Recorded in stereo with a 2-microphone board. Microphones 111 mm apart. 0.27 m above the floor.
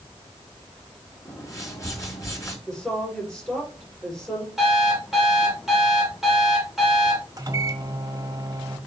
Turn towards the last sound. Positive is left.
turn(degrees=-30)  # may be behind; listen again after turning